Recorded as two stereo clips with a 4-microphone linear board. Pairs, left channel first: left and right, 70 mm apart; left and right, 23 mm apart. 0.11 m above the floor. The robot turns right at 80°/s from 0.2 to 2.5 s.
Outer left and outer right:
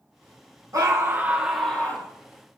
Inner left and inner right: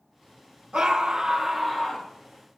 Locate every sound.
0.7 s a scream: 65° right, 3 m; by 2.1 s 40° left, 3 m